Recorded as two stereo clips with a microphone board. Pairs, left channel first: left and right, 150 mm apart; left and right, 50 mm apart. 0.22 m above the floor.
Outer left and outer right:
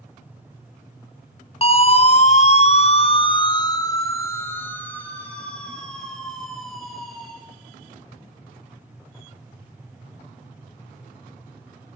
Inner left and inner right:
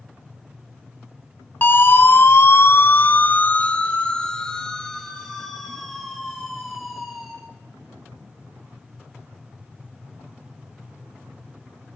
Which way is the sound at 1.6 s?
40° left (ahead or behind).